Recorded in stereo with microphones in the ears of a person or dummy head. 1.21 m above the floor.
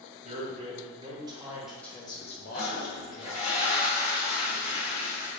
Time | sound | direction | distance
0.2 | a man speaking | 35° right (ahead or behind) | 1.3 m
2.5 | a toilet flushing | 35° left (ahead or behind) | 1.7 m